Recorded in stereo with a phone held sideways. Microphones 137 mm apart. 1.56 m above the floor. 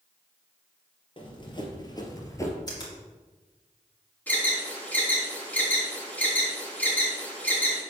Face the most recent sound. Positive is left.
turn(degrees=10)  # may be behind; listen again after turning